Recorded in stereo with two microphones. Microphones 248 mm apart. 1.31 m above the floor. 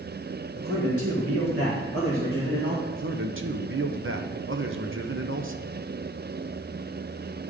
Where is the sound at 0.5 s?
60° right (ahead or behind), 1.9 m; by 2.8 s 45° right (ahead or behind), 1.7 m.